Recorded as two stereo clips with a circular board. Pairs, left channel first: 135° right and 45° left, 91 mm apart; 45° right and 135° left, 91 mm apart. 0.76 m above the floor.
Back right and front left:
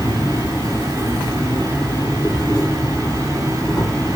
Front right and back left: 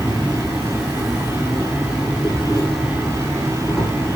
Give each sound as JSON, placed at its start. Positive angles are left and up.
{"t": 0.0, "sound": "an insect", "azimuth_deg": -145, "distance_m": 1.6}